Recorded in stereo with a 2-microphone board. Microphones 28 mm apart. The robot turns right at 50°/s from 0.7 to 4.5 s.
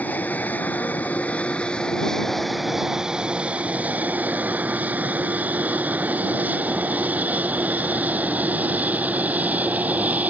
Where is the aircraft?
75° left (ahead or behind); by 10.3 s 70° right (ahead or behind).